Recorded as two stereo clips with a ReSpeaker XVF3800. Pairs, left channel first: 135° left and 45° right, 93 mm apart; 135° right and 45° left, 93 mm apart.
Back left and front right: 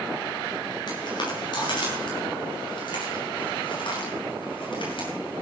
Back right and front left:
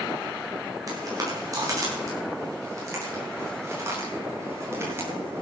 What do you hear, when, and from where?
0.9 s footsteps: 95° left, 9.5 m; by 5.4 s 110° left, 11.5 m